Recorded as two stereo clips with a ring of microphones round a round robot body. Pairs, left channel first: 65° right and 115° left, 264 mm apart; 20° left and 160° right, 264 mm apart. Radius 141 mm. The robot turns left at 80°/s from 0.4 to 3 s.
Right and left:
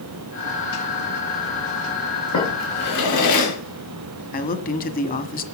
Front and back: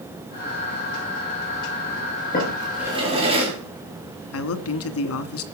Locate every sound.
2.3 s a drawer: 35° right, 6 m; by 3.5 s 85° right, 6 m
4.3 s a man speaking: 10° right, 1.8 m